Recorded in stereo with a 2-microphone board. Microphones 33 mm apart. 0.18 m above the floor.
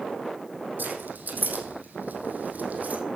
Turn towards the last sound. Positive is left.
turn(degrees=-50)  # may be behind; listen again after turning